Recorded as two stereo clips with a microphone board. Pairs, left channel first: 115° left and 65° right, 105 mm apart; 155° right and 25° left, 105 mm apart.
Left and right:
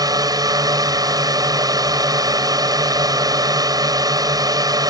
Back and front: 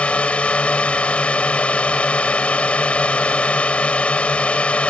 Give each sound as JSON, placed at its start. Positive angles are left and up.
{"t": 0.0, "sound": "a drone", "azimuth_deg": -85}